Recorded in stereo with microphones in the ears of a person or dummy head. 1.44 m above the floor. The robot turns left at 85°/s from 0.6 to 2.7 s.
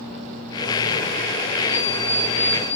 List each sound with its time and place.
1.7 s an alarm clock: 170° left, 4.5 m; by 2.8 s 85° left, 4.5 m